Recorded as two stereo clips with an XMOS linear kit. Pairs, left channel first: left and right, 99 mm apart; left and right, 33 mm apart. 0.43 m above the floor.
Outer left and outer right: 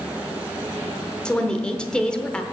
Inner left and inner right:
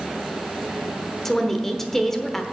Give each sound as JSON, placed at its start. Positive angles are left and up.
{"t": 1.2, "sound": "a woman speaking", "side_deg": 10, "distance_m": 0.9}